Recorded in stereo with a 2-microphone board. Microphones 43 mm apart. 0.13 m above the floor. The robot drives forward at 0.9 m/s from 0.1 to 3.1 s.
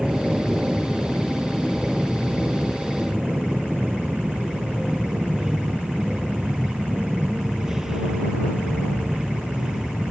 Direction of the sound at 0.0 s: 15° right (ahead or behind).